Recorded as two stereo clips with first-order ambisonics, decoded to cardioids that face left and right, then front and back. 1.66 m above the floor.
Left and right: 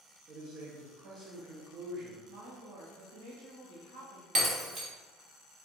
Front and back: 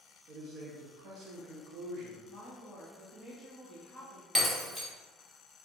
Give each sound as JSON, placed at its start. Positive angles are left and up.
{"t": 0.3, "sound": "a man speaking", "azimuth_deg": -140, "distance_m": 0.8}
{"t": 2.3, "sound": "a woman speaking", "azimuth_deg": -105, "distance_m": 1.8}
{"t": 4.3, "sound": "breaking glass", "azimuth_deg": -105, "distance_m": 1.1}